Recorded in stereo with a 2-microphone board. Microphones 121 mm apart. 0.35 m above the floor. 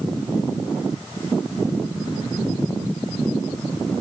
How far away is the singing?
No singing in this recording.